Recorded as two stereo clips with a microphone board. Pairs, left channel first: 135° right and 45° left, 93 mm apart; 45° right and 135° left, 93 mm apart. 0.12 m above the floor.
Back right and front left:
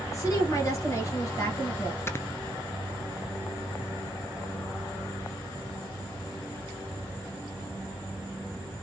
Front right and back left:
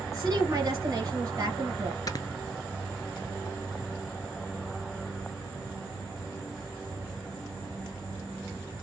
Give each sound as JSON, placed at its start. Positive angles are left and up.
{"t": 0.1, "sound": "a woman speaking", "azimuth_deg": 180, "distance_m": 2.0}
{"t": 2.1, "sound": "snoring", "azimuth_deg": -80, "distance_m": 0.6}